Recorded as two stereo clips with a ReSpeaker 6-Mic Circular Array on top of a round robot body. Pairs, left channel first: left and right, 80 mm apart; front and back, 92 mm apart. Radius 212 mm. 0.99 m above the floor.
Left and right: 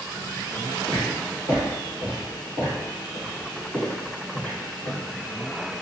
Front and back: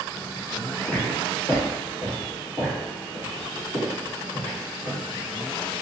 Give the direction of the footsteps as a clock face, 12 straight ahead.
2 o'clock.